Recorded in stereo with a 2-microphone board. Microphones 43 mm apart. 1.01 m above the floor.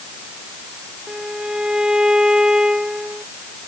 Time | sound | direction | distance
1.1 | a violin | 15° right (ahead or behind) | ?